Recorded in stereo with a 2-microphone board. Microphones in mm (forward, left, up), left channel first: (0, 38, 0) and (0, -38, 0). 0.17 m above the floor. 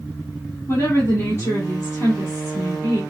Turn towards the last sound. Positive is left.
turn(degrees=35)  # may be behind; listen again after turning